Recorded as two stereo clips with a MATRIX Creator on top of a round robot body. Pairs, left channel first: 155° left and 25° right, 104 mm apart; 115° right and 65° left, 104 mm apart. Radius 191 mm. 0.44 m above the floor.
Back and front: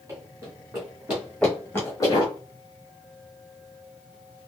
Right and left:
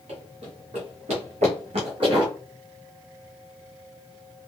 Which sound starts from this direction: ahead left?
Running footsteps, at 0.1 s.